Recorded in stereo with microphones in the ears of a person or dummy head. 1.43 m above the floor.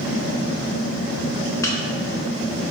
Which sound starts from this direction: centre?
A microwave, at 1.6 s.